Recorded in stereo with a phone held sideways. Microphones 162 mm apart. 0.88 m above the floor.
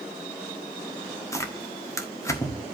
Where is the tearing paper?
20° left (ahead or behind), 1.4 m.